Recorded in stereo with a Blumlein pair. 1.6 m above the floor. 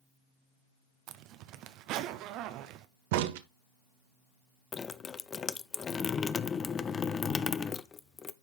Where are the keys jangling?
I don't hear keys jangling.